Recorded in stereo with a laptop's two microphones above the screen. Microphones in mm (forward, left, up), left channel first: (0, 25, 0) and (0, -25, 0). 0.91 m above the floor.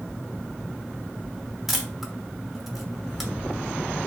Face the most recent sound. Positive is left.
turn(degrees=-5)  # may be behind; listen again after turning